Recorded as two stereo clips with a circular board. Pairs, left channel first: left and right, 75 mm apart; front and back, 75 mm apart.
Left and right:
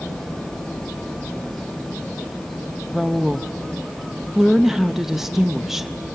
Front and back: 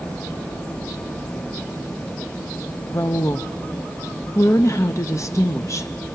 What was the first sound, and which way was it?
A woman speaking, 10° right.